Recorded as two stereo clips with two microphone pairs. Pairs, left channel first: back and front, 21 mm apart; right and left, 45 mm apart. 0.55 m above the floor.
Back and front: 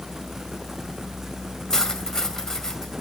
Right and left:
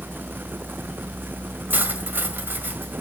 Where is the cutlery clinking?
120° left, 1.8 m.